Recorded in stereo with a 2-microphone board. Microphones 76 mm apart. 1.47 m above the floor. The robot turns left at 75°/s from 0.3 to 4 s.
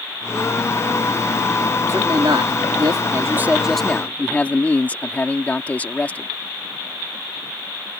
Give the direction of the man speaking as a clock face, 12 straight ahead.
1 o'clock.